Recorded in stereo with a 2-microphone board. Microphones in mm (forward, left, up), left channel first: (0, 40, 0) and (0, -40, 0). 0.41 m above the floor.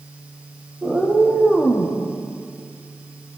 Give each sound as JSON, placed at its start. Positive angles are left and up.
{"t": 0.8, "sound": "a cat meowing", "side_deg": -10, "distance_m": 6.0}